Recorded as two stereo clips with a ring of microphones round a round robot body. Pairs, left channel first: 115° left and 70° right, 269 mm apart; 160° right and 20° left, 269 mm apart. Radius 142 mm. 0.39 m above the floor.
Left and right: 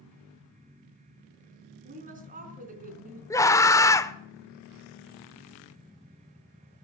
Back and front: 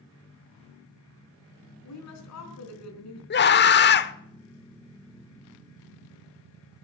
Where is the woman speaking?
130° right, 4 m.